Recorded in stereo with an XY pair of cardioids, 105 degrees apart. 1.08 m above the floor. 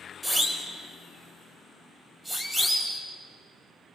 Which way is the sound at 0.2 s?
10° right.